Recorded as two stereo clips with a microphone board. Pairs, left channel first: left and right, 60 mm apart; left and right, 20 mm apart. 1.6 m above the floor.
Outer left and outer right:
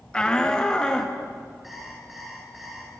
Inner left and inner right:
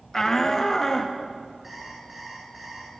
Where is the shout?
15° left (ahead or behind), 1.1 m.